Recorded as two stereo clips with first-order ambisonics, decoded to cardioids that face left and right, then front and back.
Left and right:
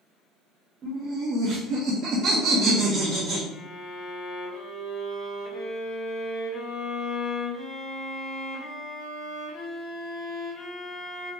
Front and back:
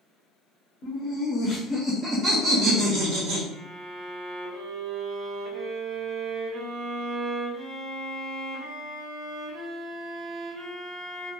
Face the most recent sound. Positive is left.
turn(degrees=140)